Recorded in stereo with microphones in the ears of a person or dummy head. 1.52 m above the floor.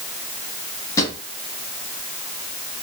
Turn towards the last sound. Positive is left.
turn(degrees=20)  # may be behind; listen again after turning